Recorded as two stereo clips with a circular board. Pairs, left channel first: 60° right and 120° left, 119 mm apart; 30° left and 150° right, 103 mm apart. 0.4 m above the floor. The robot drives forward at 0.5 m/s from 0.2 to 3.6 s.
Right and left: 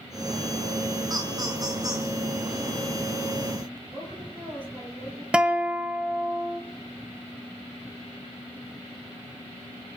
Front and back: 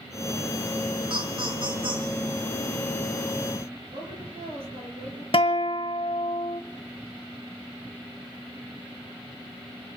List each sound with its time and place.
1.1 s laughter: straight behind, 3.5 m
3.9 s a woman speaking: 165° right, 7.5 m
5.3 s a guitar: 40° left, 1.1 m